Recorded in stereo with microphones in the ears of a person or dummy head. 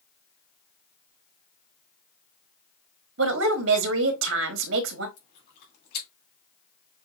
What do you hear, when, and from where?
3.2 s a woman speaking: 65° right (ahead or behind), 1.2 m
5.2 s chewing: 55° left (ahead or behind), 3 m